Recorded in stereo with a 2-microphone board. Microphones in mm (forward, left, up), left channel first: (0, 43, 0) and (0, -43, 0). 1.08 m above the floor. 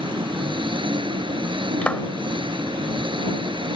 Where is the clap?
15° left (ahead or behind).